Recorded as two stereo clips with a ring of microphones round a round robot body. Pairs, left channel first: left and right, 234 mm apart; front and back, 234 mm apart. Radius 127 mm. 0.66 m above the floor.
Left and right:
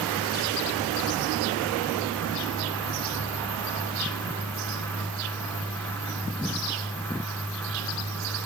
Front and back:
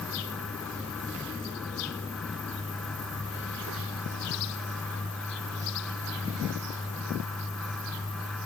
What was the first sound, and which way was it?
Only background noise.